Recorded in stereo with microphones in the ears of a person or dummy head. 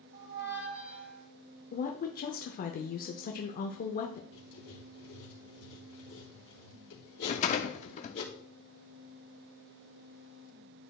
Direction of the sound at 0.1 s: 70° right (ahead or behind).